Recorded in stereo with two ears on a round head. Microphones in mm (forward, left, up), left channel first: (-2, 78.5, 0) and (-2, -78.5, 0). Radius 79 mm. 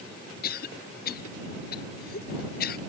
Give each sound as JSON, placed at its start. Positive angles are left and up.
{"t": 0.4, "sound": "a cough", "side_deg": 55}